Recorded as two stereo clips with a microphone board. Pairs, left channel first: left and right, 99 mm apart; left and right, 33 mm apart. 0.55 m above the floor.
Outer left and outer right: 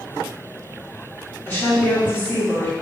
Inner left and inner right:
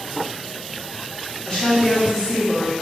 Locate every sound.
1.5 s a woman speaking: 20° left (ahead or behind), 1.6 m; by 2.7 s 15° left (ahead or behind), 1.1 m